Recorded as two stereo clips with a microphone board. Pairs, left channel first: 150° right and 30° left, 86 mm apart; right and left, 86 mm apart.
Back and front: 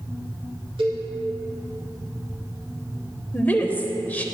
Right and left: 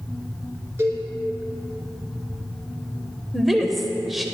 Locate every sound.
0.8 s a cowbell: 30° left, 2.5 m
3.3 s a woman speaking: 175° left, 0.9 m